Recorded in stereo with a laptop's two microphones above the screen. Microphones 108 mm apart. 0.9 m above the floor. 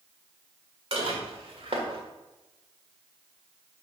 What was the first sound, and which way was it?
Dishes clattering, 60° right (ahead or behind).